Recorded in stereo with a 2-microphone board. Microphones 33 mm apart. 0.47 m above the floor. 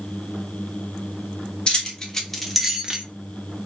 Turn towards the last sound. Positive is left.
turn(degrees=-25)  # may be behind; listen again after turning